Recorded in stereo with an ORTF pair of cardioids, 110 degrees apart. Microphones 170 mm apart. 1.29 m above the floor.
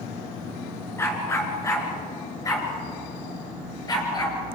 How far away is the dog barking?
About 4 m.